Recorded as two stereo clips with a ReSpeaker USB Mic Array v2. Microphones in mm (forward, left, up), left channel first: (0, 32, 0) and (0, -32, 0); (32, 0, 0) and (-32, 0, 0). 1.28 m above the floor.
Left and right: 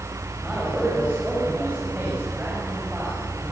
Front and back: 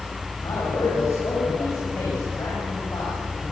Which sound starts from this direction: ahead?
A man speaking, at 0.4 s.